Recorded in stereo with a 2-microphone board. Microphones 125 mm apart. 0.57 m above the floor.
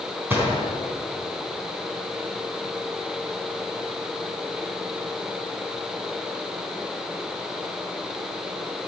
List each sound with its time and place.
0.3 s a gunshot: 15° right (ahead or behind), 4 m